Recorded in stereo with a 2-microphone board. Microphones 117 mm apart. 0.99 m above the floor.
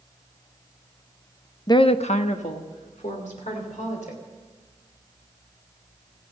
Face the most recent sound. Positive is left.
turn(degrees=85)